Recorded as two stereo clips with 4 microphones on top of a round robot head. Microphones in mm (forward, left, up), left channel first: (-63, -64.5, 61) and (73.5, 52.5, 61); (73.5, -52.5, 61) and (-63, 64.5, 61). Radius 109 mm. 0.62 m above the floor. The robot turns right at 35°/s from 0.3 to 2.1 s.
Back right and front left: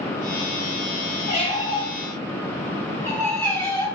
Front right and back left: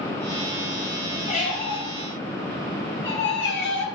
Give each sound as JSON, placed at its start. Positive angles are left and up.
{"t": 1.3, "sound": "a squeak", "azimuth_deg": -90, "distance_m": 3.0}